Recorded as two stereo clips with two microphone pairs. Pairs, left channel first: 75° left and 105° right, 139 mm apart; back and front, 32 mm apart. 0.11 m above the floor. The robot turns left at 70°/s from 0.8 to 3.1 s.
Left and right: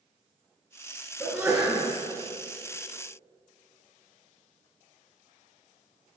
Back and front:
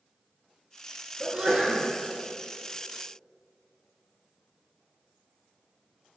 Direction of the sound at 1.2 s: 40° right.